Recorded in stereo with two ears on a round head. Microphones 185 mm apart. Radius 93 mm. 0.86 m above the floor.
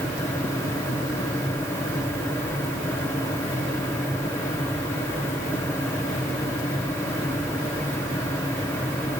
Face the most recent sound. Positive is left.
No sound to turn to.